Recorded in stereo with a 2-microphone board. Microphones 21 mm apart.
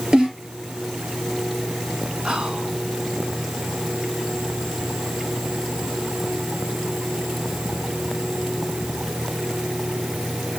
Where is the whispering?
60° right (ahead or behind), 2.5 m.